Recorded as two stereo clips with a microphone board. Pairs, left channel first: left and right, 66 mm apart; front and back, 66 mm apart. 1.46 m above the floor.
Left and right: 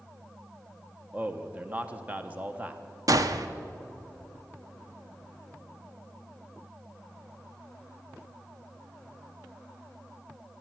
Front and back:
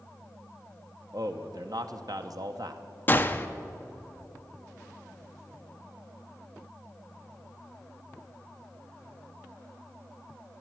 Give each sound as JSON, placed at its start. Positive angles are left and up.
{"t": 1.1, "sound": "a man speaking", "azimuth_deg": -160, "distance_m": 0.9}
{"t": 3.1, "sound": "a gunshot", "azimuth_deg": -60, "distance_m": 0.6}